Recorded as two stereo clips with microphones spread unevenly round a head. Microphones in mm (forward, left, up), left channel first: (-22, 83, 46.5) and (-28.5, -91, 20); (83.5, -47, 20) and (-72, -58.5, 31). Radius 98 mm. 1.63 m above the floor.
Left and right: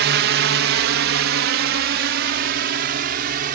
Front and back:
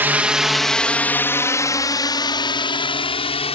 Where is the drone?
100° right; by 3.6 s 50° right.